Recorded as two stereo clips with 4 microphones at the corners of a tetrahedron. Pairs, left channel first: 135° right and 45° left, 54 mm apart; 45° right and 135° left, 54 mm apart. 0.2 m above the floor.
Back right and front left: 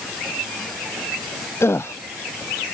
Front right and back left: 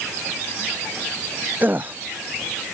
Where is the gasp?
170° right.